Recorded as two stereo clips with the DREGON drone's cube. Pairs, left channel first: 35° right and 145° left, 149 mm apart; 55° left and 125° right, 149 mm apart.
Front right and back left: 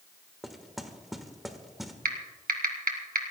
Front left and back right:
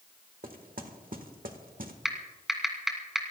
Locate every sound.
0.4 s knocking: 125° right, 1.3 m
2.0 s typing on a keyboard: 150° left, 2 m